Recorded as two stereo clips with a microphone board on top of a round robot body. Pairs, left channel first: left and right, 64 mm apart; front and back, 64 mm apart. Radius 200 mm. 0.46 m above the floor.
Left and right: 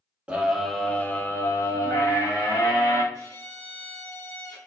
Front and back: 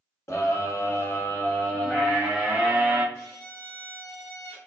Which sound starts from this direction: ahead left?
A violin, at 3.1 s.